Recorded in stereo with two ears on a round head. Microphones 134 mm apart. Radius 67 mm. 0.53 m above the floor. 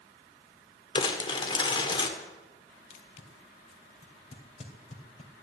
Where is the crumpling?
35° left (ahead or behind), 1.7 m.